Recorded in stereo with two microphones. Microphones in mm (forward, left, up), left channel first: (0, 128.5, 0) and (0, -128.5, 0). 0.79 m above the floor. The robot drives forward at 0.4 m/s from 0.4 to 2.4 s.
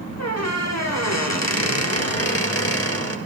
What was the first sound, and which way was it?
A squeak, 75° left (ahead or behind).